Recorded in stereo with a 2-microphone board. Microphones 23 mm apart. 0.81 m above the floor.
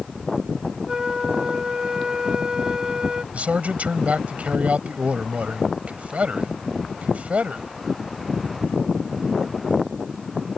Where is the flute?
30° right (ahead or behind).